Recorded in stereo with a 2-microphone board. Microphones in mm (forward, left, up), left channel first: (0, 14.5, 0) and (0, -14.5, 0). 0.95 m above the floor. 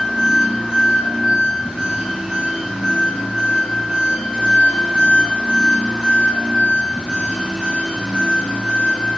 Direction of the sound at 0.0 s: 50° right (ahead or behind).